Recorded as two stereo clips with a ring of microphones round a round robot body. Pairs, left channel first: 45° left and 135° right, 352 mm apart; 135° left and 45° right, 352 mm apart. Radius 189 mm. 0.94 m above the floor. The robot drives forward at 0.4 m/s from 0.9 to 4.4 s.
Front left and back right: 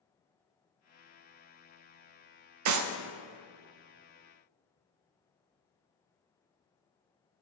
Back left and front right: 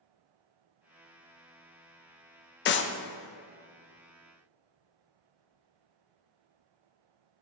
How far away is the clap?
About 0.6 m.